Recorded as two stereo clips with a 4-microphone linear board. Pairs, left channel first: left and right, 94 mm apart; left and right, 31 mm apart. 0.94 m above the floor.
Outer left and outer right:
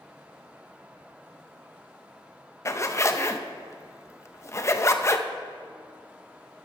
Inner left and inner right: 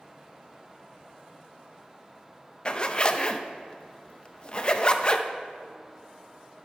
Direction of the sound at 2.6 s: 30° left (ahead or behind).